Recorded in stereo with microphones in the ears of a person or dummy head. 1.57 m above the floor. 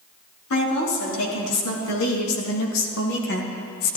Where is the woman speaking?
85° left, 4 m; by 4.0 s 45° left (ahead or behind), 1.2 m.